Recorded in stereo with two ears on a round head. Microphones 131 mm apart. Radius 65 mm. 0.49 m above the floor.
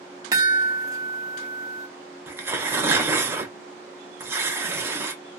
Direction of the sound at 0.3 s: 25° right (ahead or behind).